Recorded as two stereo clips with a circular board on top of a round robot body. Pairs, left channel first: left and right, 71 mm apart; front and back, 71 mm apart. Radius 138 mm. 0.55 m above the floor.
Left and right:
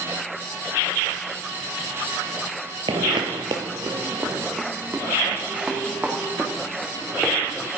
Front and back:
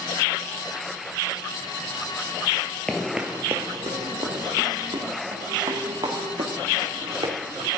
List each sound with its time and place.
2.9 s footsteps: 80° right, 0.8 m; by 7.7 s 170° right, 4.5 m